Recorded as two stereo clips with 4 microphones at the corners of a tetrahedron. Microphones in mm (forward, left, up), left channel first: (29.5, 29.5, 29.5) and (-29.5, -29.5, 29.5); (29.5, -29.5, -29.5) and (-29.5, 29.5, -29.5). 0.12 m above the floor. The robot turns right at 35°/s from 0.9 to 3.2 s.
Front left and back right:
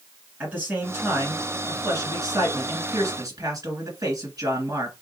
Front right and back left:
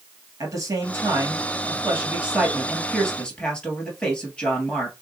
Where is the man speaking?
160° left, 1.8 m; by 4.9 s 120° right, 1.8 m.